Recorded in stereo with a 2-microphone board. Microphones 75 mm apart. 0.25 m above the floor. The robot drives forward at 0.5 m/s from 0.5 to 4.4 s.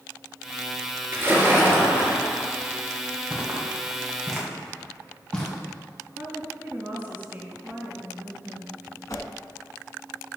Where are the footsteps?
10° right (ahead or behind), 3 m; by 5.5 s 15° left (ahead or behind), 3.5 m.